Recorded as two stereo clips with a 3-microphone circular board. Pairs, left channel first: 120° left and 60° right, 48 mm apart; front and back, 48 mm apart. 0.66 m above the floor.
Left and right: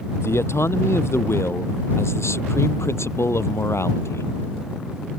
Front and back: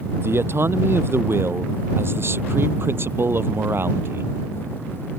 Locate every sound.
0.2 s a man speaking: 145° left; by 4.3 s 140° left